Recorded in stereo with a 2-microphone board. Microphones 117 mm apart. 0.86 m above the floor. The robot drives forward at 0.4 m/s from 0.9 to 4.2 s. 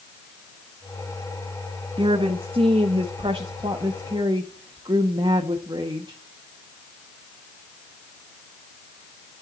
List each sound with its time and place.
2.0 s a woman speaking: 50° right (ahead or behind), 1.1 m; by 6.2 s 45° right (ahead or behind), 1.3 m